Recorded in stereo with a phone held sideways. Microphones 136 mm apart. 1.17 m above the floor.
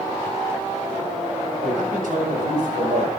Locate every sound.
1.6 s a man speaking: 85° right, 7.5 m